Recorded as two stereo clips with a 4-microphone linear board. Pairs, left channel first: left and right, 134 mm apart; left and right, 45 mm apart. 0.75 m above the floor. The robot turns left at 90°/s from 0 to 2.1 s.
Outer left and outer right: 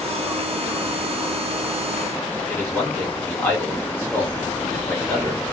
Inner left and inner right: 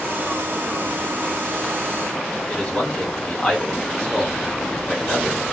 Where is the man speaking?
15° left (ahead or behind), 1.5 m.